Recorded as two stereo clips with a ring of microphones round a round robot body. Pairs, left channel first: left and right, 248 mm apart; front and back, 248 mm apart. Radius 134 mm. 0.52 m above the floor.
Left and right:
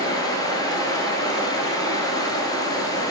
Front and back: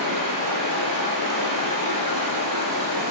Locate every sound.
0.0 s running water: 165° left, 1.8 m